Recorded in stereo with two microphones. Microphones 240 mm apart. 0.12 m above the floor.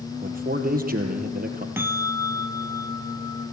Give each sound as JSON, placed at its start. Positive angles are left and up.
{"t": 0.2, "sound": "a man speaking", "side_deg": -35, "distance_m": 3.0}
{"t": 1.8, "sound": "a bell", "side_deg": -10, "distance_m": 1.1}